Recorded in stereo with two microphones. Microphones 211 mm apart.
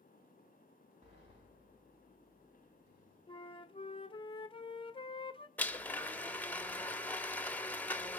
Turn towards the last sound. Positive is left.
turn(degrees=10)  # may be behind; listen again after turning